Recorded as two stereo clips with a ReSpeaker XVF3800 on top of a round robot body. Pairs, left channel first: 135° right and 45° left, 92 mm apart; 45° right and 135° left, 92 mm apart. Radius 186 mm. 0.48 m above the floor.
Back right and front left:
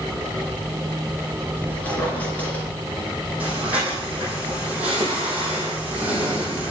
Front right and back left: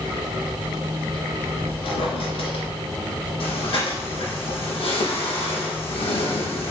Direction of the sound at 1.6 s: 60° right.